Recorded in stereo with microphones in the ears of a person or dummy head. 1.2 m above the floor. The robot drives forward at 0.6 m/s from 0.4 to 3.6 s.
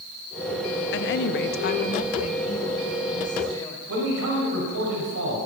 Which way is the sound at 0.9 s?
55° left (ahead or behind).